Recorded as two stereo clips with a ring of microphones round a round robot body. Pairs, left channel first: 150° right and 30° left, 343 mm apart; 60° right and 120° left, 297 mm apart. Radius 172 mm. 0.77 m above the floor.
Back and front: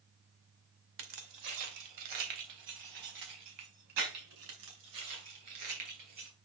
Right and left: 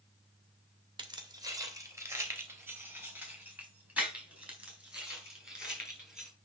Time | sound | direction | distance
1.0 | keys jangling | 45° left | 2 m